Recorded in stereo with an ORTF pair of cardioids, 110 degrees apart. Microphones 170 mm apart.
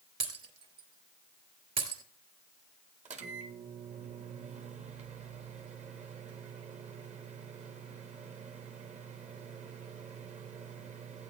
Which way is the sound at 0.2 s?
35° right.